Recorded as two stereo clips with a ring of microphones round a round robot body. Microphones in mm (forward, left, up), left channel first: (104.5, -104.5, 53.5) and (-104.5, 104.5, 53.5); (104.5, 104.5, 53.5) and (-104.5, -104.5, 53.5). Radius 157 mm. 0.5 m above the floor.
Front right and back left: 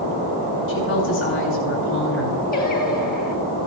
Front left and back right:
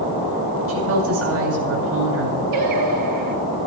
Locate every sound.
0.7 s a woman speaking: 95° right, 8 m
2.5 s singing: 105° right, 3.5 m